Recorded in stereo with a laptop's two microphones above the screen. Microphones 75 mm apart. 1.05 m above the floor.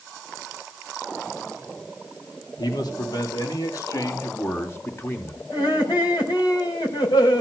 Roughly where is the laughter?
Left.